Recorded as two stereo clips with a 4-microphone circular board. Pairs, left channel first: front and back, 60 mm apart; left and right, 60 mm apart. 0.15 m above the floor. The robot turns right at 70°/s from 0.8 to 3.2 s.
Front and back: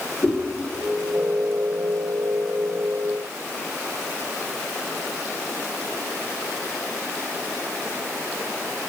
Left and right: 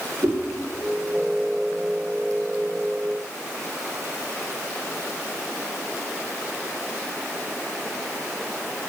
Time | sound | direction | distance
0.2 | a whoosh | 55° right | 6 m